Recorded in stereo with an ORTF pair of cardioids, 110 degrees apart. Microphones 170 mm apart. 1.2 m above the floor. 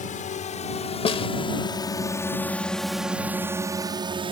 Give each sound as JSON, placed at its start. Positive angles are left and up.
{"t": 0.0, "sound": "a drone", "azimuth_deg": 50}
{"t": 1.1, "sound": "a snare drum", "azimuth_deg": 35}